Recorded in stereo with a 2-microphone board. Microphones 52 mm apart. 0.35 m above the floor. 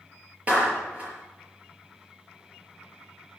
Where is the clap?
25° right (ahead or behind), 5.5 m.